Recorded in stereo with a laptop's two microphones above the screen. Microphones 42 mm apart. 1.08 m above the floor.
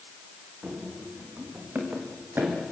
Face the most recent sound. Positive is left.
turn(degrees=-65)  # may be behind; listen again after turning